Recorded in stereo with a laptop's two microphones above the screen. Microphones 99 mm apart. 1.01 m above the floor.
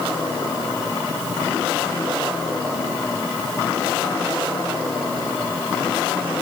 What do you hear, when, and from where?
Only background noise.